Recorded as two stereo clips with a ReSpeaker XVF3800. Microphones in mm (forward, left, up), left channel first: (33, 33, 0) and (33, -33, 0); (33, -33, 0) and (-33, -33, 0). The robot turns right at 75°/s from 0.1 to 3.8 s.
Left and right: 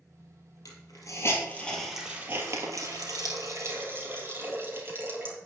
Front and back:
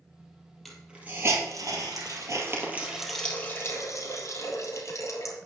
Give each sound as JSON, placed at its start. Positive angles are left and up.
{"t": 0.7, "sound": "a hiss", "azimuth_deg": 85, "distance_m": 3.0}